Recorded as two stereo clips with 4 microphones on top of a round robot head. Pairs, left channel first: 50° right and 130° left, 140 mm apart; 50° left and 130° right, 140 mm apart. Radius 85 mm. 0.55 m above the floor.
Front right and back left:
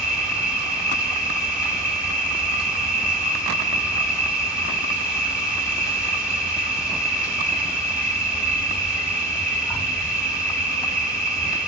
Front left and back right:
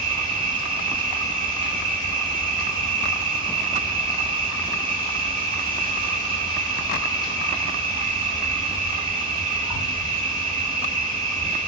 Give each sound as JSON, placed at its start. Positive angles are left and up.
{"t": 0.0, "sound": "an insect", "azimuth_deg": -145, "distance_m": 1.7}